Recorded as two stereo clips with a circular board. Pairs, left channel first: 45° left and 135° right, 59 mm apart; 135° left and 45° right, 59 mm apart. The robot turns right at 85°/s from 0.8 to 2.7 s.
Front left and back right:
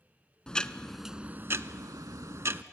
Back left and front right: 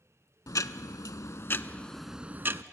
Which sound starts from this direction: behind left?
Ticking, at 0.5 s.